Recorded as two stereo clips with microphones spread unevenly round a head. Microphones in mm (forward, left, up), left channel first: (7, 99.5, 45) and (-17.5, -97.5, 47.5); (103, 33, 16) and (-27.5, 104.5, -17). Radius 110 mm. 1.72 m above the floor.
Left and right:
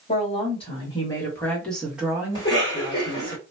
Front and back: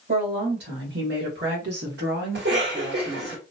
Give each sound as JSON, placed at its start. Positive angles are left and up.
{"t": 0.1, "sound": "a woman speaking", "azimuth_deg": 140, "distance_m": 1.8}
{"t": 2.4, "sound": "a cough", "azimuth_deg": 150, "distance_m": 1.7}